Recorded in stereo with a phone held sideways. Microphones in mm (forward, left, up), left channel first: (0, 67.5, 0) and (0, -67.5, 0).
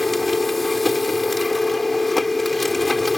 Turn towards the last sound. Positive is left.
turn(degrees=0)  # may be behind; listen again after turning